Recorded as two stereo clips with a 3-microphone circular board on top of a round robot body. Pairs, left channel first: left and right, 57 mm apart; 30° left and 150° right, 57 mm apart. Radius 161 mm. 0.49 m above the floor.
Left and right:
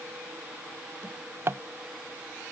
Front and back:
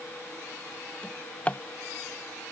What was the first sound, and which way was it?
A drawer, 40° right.